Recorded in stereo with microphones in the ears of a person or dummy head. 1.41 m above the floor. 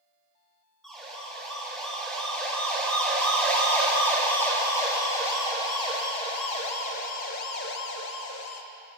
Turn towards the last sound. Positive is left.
turn(degrees=80)